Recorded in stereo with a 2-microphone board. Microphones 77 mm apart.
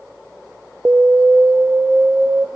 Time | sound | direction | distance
0.8 | an alarm | 20° right (ahead or behind) | 0.7 m